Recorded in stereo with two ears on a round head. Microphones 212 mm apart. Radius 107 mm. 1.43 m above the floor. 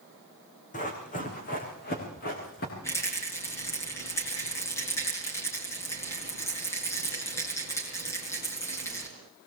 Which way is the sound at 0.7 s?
30° left (ahead or behind).